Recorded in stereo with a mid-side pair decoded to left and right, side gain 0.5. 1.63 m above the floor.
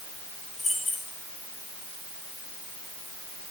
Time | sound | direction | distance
0.6 | keys jangling | 40° left | 7 m